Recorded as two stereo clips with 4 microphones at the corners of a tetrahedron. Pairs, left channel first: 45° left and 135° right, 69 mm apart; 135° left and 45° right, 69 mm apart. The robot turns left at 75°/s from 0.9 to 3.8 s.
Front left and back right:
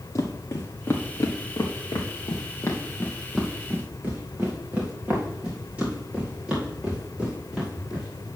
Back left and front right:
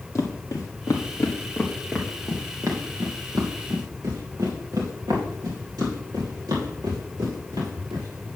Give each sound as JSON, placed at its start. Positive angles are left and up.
{"t": 0.1, "sound": "footsteps", "azimuth_deg": 90, "distance_m": 1.7}